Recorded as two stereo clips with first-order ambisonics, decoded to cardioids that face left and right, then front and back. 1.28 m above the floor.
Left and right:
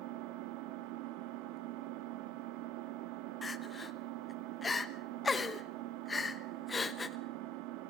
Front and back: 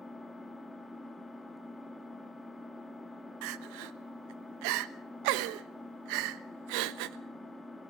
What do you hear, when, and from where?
0.0 s an engine running: 85° right, 1.7 m
3.4 s crying: 165° left, 1.1 m